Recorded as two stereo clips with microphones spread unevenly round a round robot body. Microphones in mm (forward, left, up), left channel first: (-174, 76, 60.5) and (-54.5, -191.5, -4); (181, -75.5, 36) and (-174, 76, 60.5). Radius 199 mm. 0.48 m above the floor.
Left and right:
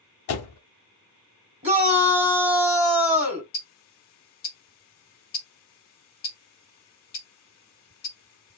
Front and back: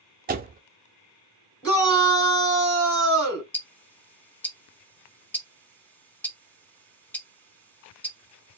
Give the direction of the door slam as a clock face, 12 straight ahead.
9 o'clock.